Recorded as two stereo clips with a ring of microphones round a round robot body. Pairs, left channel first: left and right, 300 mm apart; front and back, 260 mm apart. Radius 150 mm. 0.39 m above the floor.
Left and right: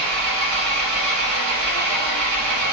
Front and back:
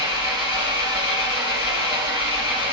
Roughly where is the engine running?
Ahead right.